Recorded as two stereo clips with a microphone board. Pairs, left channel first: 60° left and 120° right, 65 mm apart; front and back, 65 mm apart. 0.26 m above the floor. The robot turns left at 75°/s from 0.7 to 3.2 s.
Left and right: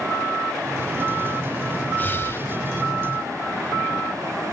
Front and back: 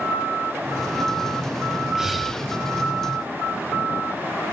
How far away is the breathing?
About 1.6 m.